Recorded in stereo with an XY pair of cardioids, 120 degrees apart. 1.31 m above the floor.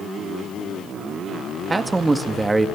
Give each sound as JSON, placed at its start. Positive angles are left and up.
{"t": 1.7, "sound": "a man speaking", "azimuth_deg": -20, "distance_m": 1.9}